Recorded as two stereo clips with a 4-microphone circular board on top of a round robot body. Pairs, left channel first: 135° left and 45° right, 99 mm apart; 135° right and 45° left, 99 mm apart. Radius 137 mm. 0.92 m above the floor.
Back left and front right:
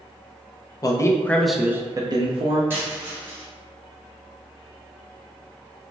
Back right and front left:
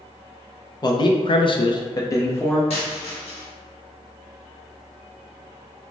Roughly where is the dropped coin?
Behind right.